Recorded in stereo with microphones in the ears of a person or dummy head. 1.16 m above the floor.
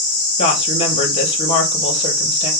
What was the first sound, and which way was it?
A woman speaking, 35° left (ahead or behind).